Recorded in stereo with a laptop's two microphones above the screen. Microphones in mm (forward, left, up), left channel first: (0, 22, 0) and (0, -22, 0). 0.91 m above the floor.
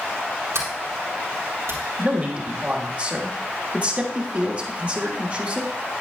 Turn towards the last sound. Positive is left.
turn(degrees=-35)  # may be behind; listen again after turning